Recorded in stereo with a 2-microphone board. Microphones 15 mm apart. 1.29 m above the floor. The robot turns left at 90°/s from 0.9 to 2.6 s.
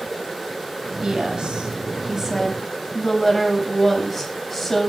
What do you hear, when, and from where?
1.0 s a woman speaking: 45° right, 8 m; by 4.9 s 170° left, 8 m